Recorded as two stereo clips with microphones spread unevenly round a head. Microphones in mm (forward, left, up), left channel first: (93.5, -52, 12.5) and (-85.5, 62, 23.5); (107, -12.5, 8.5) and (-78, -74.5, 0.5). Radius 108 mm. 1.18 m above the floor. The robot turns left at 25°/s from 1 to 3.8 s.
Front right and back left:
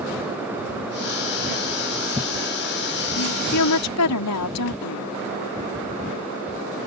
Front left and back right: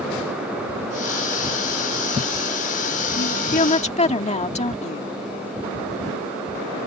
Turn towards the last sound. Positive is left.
turn(degrees=-40)